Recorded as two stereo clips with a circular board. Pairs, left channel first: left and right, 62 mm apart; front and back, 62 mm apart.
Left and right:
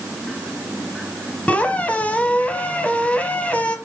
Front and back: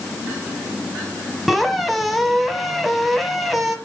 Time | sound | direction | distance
1.5 | a squeak | 90° left | 1.1 m